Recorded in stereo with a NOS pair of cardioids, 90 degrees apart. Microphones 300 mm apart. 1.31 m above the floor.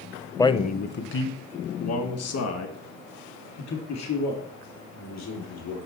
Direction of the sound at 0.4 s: 10° left.